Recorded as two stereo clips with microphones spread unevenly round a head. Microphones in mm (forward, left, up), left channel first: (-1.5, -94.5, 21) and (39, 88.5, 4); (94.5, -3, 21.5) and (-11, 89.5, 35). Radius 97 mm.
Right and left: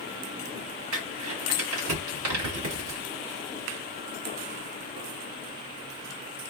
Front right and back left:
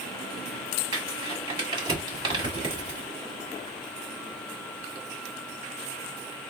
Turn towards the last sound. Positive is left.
turn(degrees=85)